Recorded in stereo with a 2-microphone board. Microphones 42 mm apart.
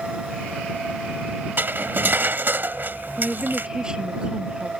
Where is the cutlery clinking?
50° right (ahead or behind).